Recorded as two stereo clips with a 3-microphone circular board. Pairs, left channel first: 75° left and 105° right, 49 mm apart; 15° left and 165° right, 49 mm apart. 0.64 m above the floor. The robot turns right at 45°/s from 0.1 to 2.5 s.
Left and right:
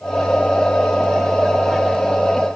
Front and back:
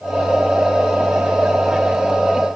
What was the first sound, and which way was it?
Only background noise.